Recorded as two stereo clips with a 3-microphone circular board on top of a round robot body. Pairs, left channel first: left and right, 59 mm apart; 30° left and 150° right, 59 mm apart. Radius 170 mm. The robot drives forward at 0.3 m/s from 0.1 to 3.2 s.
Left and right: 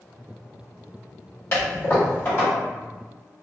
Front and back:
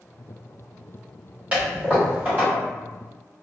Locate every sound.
1.5 s a toilet flushing: 140° left, 2.0 m; by 2.5 s 145° left, 2 m